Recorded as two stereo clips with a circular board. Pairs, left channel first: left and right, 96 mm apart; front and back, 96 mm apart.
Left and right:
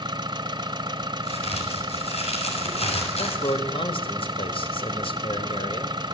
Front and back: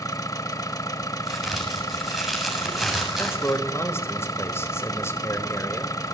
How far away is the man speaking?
About 4 m.